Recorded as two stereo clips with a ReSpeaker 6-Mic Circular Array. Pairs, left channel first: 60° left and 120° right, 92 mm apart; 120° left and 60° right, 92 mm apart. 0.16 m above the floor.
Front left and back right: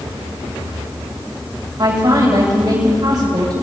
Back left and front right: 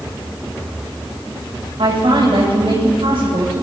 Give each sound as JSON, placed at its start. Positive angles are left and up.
{"t": 1.8, "sound": "a woman speaking", "azimuth_deg": -75, "distance_m": 8.0}